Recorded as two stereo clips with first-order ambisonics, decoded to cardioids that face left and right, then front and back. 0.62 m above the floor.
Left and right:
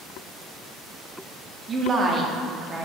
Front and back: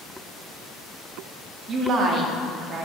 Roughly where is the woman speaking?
Behind right.